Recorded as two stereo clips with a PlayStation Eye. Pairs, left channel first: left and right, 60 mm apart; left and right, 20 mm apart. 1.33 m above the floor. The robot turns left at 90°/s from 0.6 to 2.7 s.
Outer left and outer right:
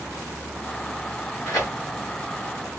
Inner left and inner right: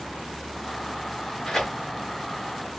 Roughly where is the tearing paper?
Left.